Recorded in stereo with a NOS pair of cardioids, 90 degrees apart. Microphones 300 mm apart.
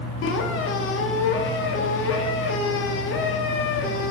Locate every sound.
0.2 s a squeak: 45° left, 0.8 m